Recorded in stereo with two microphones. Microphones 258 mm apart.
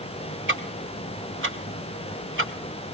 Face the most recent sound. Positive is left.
turn(degrees=-45)  # may be behind; listen again after turning